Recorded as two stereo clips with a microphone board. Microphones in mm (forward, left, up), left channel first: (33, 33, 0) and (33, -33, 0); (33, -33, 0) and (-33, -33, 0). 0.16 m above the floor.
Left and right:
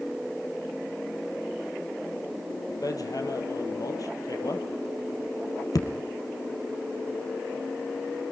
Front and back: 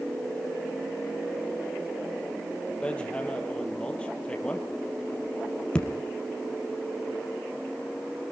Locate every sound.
2.8 s hammering: 75° left, 2.5 m